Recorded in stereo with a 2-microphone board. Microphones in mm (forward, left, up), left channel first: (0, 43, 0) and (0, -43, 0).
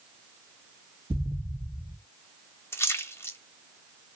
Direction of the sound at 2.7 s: 30° left (ahead or behind).